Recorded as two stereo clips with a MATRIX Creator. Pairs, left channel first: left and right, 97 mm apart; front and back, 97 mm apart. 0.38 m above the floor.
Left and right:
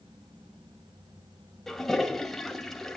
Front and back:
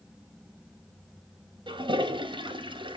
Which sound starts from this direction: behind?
A toilet flushing, at 1.7 s.